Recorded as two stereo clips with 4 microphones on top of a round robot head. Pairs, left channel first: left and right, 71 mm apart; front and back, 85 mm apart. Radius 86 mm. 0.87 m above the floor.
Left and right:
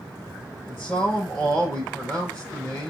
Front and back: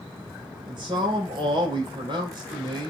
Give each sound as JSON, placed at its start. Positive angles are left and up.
{"t": 0.7, "sound": "a man speaking", "azimuth_deg": 155, "distance_m": 3.5}